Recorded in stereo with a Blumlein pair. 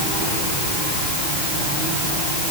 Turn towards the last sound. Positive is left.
No sound to turn to.